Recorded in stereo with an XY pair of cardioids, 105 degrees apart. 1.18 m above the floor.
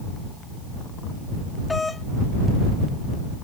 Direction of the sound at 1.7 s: 25° left.